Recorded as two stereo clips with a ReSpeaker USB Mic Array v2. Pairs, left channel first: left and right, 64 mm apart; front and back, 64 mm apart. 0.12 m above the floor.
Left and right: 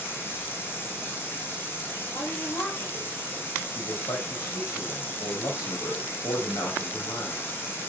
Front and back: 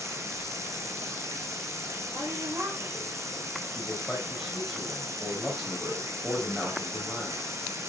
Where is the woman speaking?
145° left, 5.5 m.